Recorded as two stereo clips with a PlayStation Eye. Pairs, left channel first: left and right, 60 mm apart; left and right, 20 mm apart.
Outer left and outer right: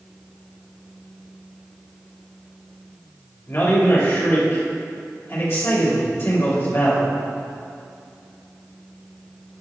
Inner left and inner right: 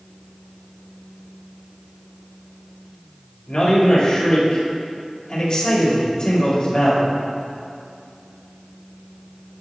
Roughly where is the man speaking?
Left.